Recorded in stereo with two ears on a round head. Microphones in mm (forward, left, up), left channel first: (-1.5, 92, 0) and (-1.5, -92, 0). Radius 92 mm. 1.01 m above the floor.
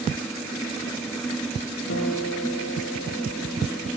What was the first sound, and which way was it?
A guitar, 60° left (ahead or behind).